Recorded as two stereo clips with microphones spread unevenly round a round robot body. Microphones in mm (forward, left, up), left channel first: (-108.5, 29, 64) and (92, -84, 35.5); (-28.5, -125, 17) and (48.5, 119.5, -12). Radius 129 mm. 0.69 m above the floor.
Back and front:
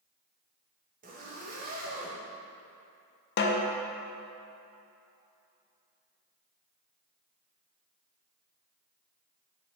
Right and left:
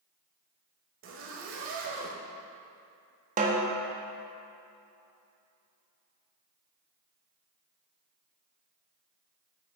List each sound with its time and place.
1.0 s a zipper: 30° left, 0.8 m
3.4 s a snare drum: 120° left, 0.6 m